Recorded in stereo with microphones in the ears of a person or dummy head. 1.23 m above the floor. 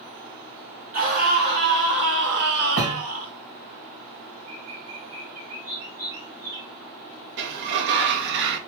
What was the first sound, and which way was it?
A scream, 45° right (ahead or behind).